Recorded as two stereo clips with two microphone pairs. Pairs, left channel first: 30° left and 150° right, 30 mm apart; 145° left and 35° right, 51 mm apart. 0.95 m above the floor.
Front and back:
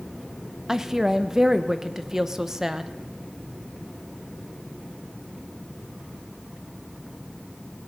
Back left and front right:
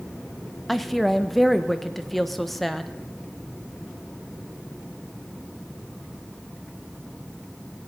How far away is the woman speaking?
About 0.6 m.